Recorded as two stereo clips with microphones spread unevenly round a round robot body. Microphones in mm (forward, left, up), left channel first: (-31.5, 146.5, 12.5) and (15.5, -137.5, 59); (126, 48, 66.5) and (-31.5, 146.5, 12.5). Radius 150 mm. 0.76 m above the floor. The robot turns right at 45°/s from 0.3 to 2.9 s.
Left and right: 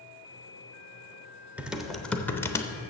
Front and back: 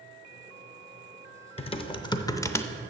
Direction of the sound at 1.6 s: 20° left.